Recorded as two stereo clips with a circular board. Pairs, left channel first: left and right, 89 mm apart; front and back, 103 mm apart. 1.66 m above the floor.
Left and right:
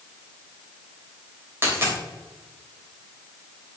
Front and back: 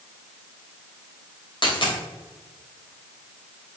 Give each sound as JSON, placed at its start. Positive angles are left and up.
{"t": 1.6, "sound": "a dropped coin", "azimuth_deg": -30, "distance_m": 3.0}